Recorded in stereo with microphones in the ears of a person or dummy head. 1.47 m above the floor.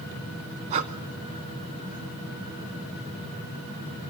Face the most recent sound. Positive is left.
turn(degrees=-30)  # may be behind; listen again after turning